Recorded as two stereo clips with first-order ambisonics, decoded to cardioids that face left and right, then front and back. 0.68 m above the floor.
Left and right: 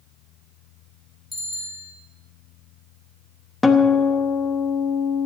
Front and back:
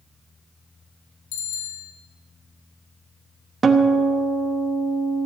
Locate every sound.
1.3 s a bicycle bell: 10° left, 3.5 m
3.6 s a guitar: 155° left, 1.0 m